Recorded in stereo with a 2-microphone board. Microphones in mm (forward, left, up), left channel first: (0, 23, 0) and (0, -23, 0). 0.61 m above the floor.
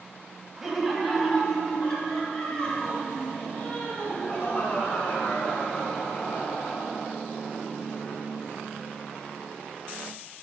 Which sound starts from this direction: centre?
Laughter, at 0.6 s.